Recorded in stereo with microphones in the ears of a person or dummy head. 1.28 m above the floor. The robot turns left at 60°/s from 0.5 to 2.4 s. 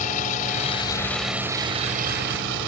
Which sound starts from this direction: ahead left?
A vehicle, at 0.0 s.